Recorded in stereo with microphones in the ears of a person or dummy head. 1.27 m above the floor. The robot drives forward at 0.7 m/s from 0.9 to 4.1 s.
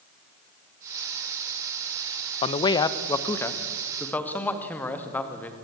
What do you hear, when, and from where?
2.4 s a man speaking: 30° left (ahead or behind), 0.7 m; by 5.5 s 10° left (ahead or behind), 1.8 m